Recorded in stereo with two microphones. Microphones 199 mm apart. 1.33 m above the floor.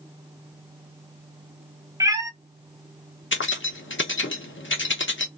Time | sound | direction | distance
2.0 | a cat meowing | 15° right (ahead or behind) | 0.5 m
3.3 | keys jangling | 75° left (ahead or behind) | 0.8 m